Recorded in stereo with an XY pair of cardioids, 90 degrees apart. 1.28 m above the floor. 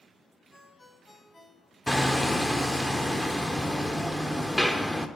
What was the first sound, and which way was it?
A ringtone, 20° left.